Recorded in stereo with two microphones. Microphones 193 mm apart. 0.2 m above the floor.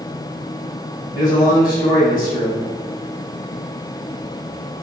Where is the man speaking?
20° left (ahead or behind), 1.2 m.